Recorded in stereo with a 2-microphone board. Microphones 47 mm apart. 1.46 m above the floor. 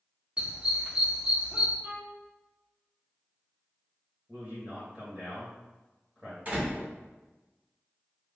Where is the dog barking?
25° right (ahead or behind), 1.3 m.